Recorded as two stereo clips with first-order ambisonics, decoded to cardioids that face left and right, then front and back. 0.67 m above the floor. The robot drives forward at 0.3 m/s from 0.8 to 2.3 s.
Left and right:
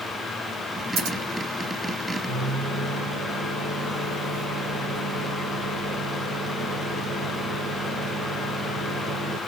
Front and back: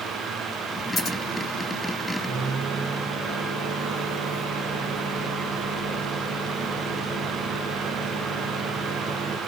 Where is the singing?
I don't hear singing.